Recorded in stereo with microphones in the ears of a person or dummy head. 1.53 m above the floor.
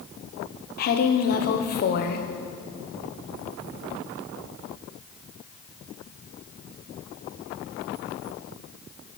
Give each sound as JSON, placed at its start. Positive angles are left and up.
{"t": 0.8, "sound": "a woman speaking", "side_deg": 55, "distance_m": 0.7}